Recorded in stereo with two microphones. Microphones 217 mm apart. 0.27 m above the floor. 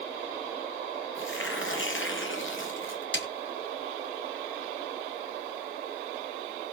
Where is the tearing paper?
65° left (ahead or behind), 3.5 m.